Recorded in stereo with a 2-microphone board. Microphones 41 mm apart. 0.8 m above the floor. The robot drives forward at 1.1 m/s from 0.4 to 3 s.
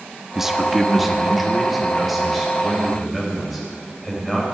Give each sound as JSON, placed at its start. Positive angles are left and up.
{"t": 0.3, "sound": "a man speaking", "side_deg": -10, "distance_m": 0.7}